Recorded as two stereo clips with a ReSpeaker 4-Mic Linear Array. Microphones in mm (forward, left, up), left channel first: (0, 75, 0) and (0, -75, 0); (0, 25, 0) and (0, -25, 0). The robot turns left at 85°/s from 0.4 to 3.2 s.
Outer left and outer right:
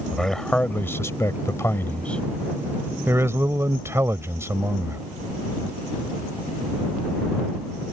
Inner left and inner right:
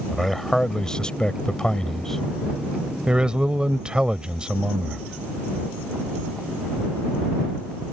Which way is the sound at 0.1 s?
5° left (ahead or behind).